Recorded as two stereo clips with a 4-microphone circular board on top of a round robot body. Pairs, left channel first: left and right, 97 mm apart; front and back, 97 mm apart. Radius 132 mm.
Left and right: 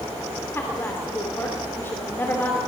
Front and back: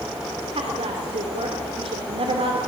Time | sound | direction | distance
0.6 | a woman speaking | 160° left | 2.5 m